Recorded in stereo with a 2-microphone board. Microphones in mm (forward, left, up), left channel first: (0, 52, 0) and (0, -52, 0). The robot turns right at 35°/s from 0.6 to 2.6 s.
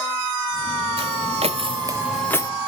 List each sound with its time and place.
1.0 s footsteps: 65° right (ahead or behind), 1.3 m; by 2.5 s 35° left (ahead or behind), 0.8 m